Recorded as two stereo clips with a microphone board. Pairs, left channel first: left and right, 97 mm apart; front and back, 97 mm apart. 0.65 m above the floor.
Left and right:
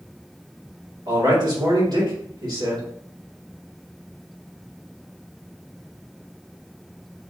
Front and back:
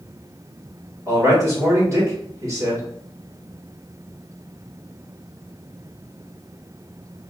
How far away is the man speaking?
About 2 m.